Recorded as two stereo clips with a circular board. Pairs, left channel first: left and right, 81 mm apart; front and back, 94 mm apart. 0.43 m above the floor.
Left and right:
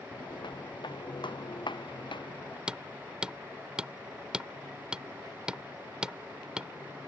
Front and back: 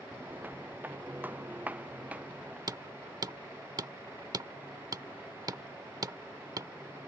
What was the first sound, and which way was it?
Footsteps, 110° left.